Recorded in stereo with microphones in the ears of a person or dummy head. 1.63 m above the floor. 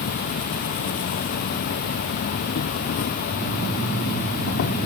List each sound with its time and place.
0.0 s an insect: 50° left (ahead or behind)